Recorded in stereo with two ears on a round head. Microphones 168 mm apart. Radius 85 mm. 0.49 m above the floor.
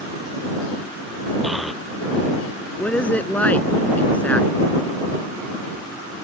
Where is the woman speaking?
10° left (ahead or behind).